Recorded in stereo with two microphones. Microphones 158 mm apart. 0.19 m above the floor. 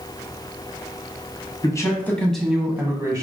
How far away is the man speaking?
About 1.1 m.